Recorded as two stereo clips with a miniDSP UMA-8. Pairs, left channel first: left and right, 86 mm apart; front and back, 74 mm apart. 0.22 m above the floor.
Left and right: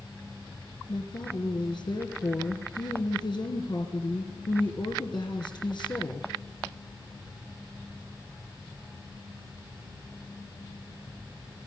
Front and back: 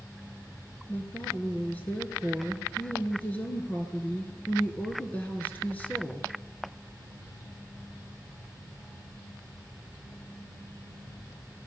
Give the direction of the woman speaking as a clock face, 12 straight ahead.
10 o'clock.